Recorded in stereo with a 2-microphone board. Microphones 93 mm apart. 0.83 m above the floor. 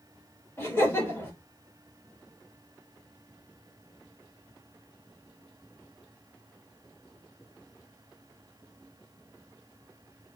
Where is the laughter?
25° left (ahead or behind), 1.3 m.